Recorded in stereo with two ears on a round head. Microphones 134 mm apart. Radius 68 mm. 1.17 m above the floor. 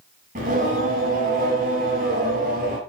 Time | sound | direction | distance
0.3 | singing | 55° right (ahead or behind) | 7.5 m